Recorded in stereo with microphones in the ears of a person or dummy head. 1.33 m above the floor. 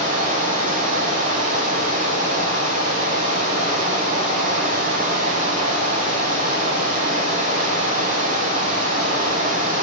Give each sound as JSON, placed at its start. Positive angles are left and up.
{"t": 0.0, "sound": "running water", "side_deg": -35, "distance_m": 6.0}